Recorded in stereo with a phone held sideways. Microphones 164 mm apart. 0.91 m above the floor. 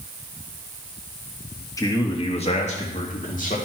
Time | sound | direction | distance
1.8 | a man speaking | 20° left (ahead or behind) | 1.3 m